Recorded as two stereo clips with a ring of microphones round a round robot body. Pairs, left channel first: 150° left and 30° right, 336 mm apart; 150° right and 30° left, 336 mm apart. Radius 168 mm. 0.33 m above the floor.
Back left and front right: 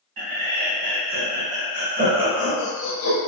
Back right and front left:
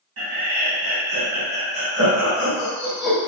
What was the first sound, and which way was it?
Laughter, 15° right.